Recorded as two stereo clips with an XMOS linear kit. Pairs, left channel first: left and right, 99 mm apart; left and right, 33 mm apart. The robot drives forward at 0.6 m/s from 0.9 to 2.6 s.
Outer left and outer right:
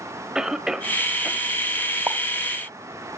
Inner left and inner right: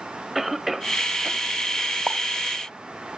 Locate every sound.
0.3 s a cough: 5° right (ahead or behind), 1.3 m
2.1 s a pop: 25° right (ahead or behind), 0.7 m